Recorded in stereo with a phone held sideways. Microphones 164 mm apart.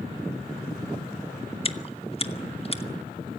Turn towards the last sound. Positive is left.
turn(degrees=35)  # may be behind; listen again after turning